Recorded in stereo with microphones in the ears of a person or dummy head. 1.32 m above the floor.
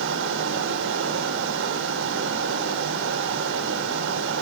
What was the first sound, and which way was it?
A fan, 80° right.